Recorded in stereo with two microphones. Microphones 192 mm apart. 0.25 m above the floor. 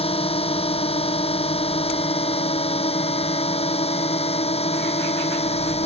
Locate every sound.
0.0 s a drone: 30° left (ahead or behind)